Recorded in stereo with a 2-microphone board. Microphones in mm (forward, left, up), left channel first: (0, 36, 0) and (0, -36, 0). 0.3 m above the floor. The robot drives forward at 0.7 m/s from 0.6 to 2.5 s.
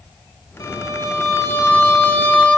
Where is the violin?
55° left (ahead or behind), 1.0 m; by 2.6 s 25° left (ahead or behind), 1.8 m.